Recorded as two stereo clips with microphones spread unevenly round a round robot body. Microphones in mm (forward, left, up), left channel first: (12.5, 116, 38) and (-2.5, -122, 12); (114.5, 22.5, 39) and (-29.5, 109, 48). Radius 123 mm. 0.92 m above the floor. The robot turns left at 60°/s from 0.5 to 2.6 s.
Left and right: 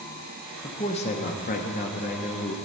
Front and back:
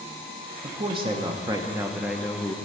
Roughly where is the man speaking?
Behind left.